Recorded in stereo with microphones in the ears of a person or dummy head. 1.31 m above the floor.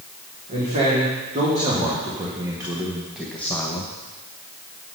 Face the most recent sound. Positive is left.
turn(degrees=25)  # may be behind; listen again after turning